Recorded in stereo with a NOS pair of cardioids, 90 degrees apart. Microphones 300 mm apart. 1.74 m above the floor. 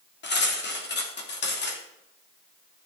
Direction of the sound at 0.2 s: 35° left.